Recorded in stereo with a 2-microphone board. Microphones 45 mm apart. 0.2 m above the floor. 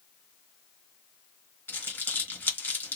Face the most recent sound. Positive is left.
turn(degrees=50)  # may be behind; listen again after turning